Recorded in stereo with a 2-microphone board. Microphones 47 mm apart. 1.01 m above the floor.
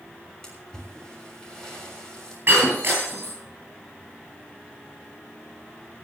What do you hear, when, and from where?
0.4 s a splash: 15° left (ahead or behind), 6.5 m
2.5 s breaking glass: 45° right (ahead or behind), 10 m